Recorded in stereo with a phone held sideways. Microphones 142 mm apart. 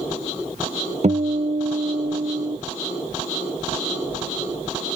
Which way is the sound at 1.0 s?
55° right (ahead or behind).